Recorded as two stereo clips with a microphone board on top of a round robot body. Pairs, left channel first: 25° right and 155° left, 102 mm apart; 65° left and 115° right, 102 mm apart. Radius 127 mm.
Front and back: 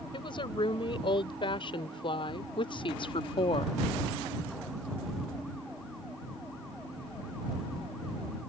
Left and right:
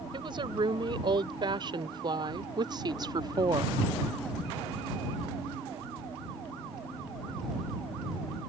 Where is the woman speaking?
65° right; by 3.8 s 60° right.